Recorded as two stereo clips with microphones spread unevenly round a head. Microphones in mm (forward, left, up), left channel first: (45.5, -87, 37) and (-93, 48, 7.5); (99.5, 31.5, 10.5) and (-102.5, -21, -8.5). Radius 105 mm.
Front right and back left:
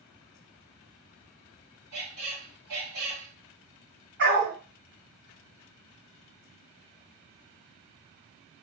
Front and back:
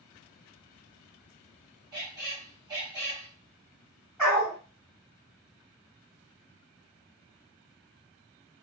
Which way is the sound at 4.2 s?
105° left.